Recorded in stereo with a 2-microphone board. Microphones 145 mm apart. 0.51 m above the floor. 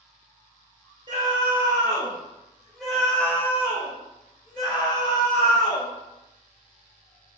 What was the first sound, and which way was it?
A scream, 35° right (ahead or behind).